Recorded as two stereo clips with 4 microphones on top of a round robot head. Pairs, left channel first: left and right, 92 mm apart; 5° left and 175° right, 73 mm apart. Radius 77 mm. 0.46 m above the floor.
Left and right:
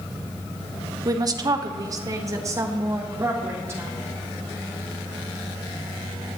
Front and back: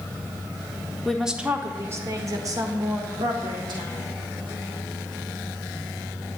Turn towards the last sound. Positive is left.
turn(degrees=-155)